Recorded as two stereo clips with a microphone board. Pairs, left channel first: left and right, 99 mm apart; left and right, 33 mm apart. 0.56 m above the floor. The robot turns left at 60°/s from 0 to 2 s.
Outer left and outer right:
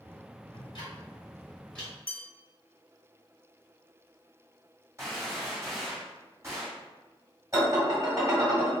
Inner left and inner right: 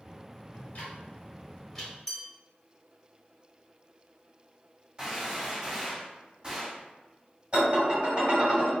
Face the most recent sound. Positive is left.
turn(degrees=-30)  # may be behind; listen again after turning